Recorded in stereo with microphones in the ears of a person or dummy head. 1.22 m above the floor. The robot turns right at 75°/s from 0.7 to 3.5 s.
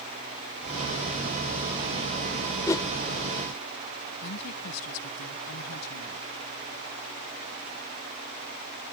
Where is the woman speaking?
85° left.